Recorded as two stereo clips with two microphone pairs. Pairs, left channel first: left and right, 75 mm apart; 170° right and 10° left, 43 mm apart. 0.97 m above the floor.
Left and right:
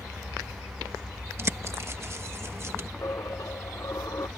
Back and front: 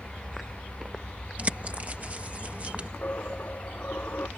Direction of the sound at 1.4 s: 45° right.